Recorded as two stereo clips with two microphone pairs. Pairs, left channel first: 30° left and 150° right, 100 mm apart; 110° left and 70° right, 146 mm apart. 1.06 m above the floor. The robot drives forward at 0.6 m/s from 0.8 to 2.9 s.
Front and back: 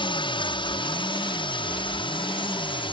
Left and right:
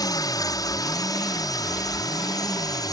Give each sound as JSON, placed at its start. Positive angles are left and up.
{"t": 0.0, "sound": "a drone", "azimuth_deg": 50}